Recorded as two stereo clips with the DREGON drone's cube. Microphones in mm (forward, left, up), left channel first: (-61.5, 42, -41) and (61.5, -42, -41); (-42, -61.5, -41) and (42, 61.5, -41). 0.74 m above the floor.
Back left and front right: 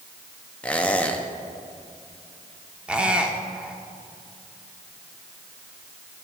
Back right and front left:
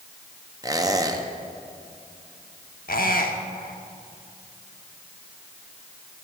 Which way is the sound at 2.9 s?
115° right.